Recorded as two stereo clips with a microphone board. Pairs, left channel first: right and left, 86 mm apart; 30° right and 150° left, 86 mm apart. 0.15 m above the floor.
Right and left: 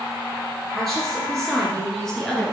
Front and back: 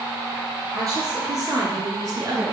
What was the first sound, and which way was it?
A woman speaking, 175° right.